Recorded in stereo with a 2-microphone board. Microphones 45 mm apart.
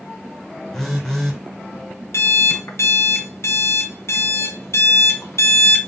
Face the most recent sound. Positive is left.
turn(degrees=75)  # may be behind; listen again after turning